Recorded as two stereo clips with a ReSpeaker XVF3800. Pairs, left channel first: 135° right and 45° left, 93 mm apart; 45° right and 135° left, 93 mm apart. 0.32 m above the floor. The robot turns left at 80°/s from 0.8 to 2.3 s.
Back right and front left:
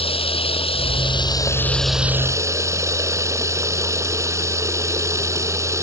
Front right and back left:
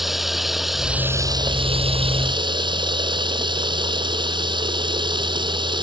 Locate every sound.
0.0 s running water: 135° right; by 5.8 s 105° left